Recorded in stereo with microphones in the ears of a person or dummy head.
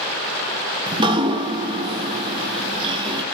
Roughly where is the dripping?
Right.